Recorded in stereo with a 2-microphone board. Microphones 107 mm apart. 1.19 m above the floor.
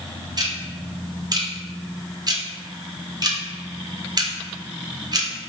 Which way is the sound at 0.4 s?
35° right (ahead or behind).